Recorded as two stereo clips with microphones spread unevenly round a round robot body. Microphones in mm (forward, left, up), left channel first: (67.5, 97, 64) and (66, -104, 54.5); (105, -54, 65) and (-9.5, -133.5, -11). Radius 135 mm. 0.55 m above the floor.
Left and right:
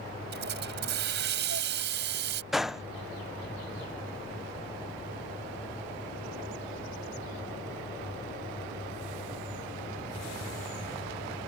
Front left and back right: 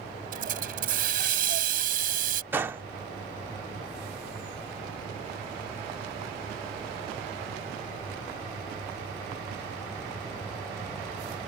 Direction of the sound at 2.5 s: 175° right.